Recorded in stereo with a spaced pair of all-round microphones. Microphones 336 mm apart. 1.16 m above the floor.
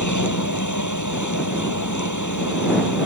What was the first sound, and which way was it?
A machine running, 60° left (ahead or behind).